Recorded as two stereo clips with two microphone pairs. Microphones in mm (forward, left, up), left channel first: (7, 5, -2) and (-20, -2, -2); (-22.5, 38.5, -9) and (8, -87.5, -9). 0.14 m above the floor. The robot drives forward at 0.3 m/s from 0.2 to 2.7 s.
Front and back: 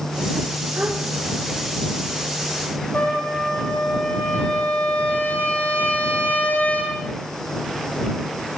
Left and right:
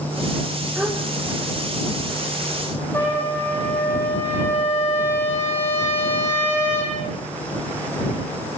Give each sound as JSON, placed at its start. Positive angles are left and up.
{"t": 0.8, "sound": "a gasp", "azimuth_deg": -160, "distance_m": 6.0}
{"t": 2.9, "sound": "a trumpet", "azimuth_deg": 30, "distance_m": 7.5}